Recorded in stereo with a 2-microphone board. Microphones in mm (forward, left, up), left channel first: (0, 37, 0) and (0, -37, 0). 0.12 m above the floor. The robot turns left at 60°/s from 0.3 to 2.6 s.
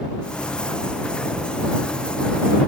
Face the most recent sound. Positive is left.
No sound to turn to.